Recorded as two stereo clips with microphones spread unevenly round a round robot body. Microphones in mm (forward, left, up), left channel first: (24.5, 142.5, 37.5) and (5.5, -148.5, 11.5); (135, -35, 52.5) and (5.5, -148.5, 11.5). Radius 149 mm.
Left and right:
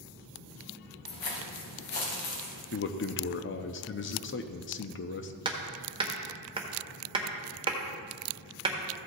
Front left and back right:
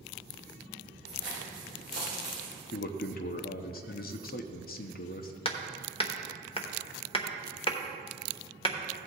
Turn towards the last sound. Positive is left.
turn(degrees=-20)